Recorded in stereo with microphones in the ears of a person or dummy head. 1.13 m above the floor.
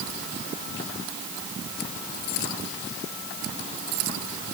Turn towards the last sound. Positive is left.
No sound to turn to.